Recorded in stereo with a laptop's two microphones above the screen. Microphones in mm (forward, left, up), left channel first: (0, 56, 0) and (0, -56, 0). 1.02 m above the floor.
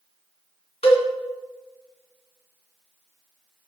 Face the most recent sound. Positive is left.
turn(degrees=60)  # may be behind; listen again after turning